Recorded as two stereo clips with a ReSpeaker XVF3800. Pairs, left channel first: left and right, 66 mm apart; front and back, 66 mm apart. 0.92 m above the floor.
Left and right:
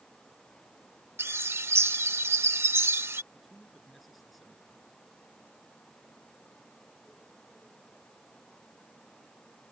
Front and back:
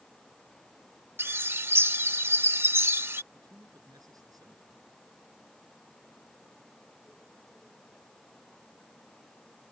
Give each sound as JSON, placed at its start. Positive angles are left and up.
{"t": 1.2, "sound": "a bird", "azimuth_deg": -130}
{"t": 3.3, "sound": "a man speaking", "azimuth_deg": 180}